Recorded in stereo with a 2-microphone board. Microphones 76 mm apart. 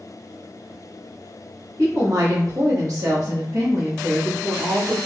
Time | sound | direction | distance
1.8 | a woman speaking | 45° right (ahead or behind) | 1.5 m